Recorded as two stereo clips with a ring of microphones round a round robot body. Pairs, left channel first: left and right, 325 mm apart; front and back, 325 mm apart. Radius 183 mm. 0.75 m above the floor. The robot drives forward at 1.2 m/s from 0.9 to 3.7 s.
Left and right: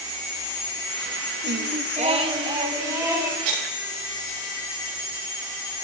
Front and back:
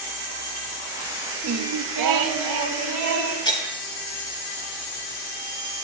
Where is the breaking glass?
75° right, 5 m; by 3.8 s 80° right, 5 m.